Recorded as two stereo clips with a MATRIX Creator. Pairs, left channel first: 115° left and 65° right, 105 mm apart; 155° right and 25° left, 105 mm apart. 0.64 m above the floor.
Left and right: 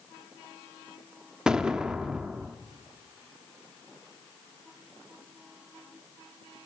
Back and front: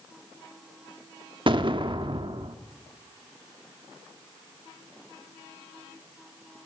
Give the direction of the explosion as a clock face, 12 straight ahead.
12 o'clock.